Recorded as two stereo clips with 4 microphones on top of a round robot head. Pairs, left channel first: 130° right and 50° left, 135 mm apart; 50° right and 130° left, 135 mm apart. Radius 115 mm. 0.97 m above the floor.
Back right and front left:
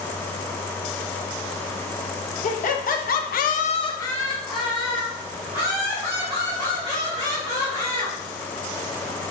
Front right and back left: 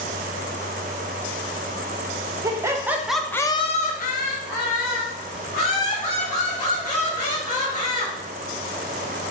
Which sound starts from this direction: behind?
Laughter, at 2.4 s.